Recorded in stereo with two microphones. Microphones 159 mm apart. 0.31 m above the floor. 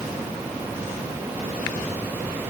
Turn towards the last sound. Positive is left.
No sound to turn to.